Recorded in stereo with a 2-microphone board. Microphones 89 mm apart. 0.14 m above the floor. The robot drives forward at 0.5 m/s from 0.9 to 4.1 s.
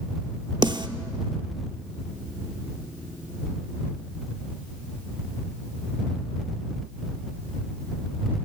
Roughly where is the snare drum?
Right.